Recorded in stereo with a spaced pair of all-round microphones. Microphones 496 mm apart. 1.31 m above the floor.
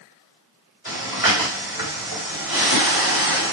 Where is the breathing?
40° left (ahead or behind), 2.5 m.